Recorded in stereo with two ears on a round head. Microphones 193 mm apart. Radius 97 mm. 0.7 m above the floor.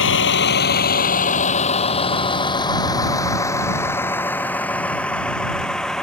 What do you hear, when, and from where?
0.0 s a vehicle: 65° left (ahead or behind); by 6.0 s centre (ahead or behind)